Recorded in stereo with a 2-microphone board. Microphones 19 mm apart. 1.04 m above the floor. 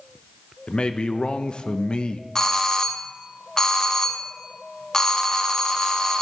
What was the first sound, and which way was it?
A man speaking, 60° left (ahead or behind).